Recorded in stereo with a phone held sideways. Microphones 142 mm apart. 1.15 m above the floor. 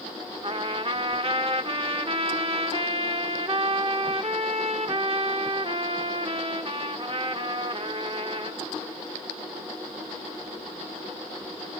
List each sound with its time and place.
0.4 s a trumpet: 40° right (ahead or behind), 0.9 m